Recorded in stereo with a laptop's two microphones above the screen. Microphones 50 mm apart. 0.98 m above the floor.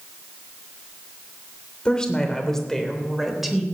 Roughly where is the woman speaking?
Centre.